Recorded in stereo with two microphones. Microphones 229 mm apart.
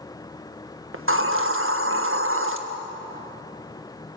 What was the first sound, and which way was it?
A hiss, 65° right (ahead or behind).